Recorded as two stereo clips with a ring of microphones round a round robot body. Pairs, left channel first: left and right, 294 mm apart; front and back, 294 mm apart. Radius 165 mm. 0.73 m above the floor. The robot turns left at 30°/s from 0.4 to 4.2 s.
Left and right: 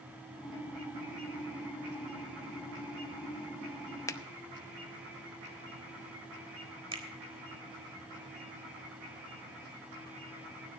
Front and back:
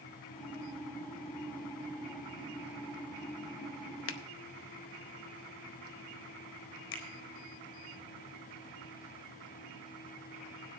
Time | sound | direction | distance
4.1 | a finger snap | 15° left | 0.8 m
6.9 | a finger snap | 20° right | 4 m